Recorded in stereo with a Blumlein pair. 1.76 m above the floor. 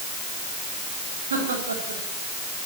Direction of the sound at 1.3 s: 70° right.